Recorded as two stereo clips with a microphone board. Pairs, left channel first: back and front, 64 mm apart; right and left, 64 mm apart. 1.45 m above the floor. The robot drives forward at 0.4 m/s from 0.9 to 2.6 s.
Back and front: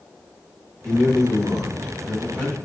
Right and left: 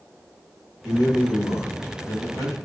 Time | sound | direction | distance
0.8 | a man speaking | 100° right | 1.8 m